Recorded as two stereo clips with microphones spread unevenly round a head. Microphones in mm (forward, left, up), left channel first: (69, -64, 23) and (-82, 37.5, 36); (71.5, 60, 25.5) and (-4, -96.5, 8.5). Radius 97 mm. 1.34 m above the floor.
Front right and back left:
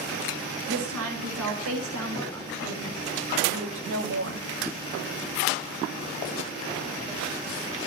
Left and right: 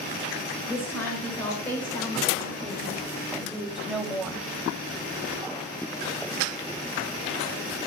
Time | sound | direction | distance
0.7 | a woman speaking | 145° left | 8.5 m